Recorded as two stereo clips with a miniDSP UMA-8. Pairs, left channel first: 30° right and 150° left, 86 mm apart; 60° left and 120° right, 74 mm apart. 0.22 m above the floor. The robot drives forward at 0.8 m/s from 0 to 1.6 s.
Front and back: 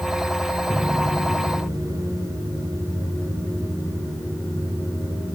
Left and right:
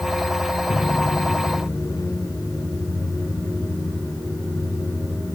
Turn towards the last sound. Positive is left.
turn(degrees=95)